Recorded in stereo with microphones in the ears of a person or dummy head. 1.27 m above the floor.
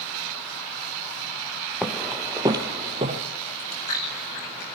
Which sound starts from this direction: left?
Chewing, at 3.5 s.